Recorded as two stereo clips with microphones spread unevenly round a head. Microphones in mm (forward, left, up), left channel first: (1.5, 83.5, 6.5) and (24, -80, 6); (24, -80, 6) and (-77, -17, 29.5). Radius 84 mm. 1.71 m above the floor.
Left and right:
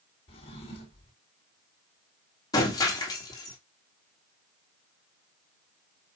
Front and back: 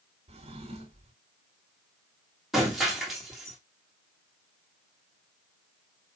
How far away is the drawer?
About 1.9 m.